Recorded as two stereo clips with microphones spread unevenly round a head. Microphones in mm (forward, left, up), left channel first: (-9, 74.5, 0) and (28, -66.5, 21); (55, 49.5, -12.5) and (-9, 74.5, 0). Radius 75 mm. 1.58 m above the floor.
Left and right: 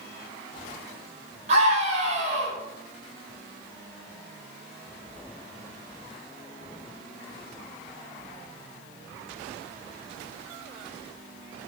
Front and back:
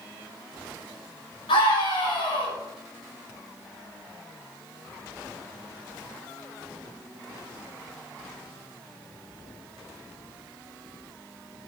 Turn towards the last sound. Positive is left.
turn(degrees=-30)